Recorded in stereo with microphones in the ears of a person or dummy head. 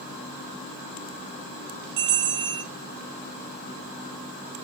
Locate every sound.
2.0 s a bell: 65° right (ahead or behind), 3.5 m